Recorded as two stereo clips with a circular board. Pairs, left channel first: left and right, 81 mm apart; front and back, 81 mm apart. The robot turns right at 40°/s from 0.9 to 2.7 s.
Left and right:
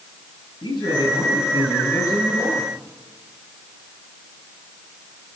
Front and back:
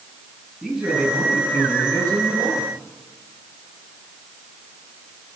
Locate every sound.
0.6 s a man speaking: 90° left, 10 m; by 2.7 s 160° left, 10 m